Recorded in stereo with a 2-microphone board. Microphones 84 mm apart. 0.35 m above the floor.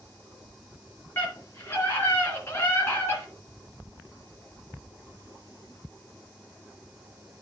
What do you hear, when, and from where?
1.2 s a scream: 25° left (ahead or behind), 4 m; by 3.3 s 30° left (ahead or behind), 3 m